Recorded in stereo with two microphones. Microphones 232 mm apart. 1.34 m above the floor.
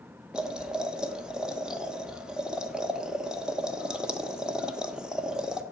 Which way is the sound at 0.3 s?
5° right (ahead or behind).